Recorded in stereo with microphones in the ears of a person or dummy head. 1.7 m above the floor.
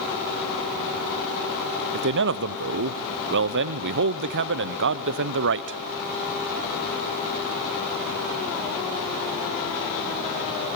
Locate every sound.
1.9 s a man speaking: 60° right (ahead or behind), 1.0 m